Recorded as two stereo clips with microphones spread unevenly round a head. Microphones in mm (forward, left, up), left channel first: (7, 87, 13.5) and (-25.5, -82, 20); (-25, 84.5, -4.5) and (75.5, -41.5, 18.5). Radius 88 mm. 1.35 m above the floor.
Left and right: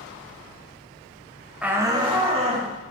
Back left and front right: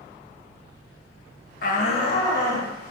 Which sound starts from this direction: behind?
A shout, at 1.6 s.